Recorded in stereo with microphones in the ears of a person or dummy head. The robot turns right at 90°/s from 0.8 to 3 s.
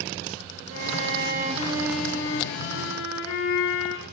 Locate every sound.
0.7 s a violin: 105° right, 4.5 m; by 4.0 s 95° left, 4.5 m